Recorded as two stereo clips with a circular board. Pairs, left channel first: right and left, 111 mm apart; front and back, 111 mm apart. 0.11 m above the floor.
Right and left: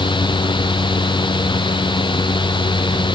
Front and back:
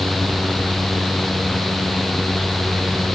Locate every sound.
Only background noise.